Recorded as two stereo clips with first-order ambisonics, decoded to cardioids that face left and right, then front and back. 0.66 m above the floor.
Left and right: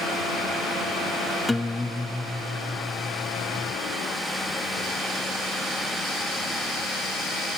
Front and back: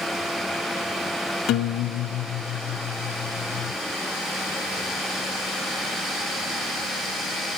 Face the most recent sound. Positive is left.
turn(degrees=10)